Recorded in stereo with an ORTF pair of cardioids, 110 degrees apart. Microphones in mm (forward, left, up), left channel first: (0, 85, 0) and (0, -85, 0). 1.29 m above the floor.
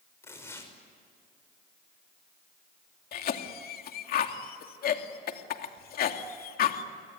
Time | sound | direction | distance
0.2 | tearing paper | 15° left | 6 m
3.1 | a cough | 55° left | 2.5 m